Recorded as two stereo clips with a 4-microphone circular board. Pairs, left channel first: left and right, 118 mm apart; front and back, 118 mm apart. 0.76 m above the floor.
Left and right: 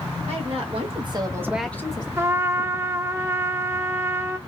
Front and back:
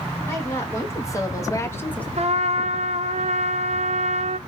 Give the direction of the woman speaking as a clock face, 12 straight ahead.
2 o'clock.